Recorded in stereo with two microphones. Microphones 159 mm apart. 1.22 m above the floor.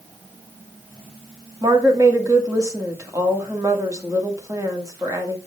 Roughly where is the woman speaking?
Right.